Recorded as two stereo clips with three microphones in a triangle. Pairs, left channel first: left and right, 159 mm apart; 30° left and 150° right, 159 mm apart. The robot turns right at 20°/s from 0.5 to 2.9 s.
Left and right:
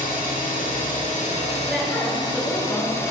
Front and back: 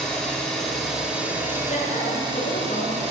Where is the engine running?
115° left, 4.5 m; by 3.1 s 160° left, 4.5 m.